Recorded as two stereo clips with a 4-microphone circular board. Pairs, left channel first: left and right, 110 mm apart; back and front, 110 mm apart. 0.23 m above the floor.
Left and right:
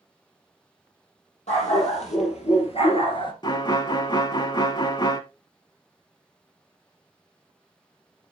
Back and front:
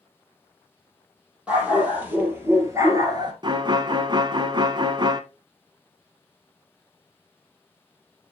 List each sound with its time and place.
1.5 s a dog barking: 80° left, 3.5 m; by 3.3 s 45° left, 1.7 m
3.4 s a violin: 45° left, 0.7 m